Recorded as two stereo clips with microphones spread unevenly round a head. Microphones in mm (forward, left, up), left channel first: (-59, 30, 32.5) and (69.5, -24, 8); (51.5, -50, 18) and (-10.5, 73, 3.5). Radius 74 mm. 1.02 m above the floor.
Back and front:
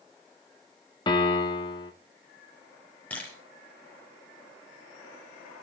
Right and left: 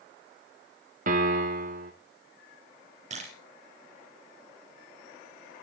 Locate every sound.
1.1 s a piano: 95° left, 2.5 m
3.1 s a camera shutter: 80° left, 5.5 m